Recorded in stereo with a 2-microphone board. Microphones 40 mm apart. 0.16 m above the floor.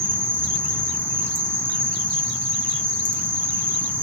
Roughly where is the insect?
Right.